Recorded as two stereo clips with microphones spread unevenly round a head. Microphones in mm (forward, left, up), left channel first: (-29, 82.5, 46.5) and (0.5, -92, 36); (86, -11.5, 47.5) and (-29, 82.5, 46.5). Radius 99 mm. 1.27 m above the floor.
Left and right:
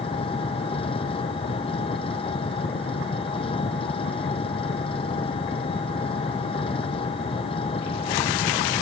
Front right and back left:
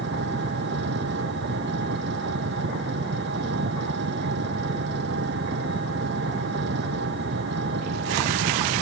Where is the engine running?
160° left.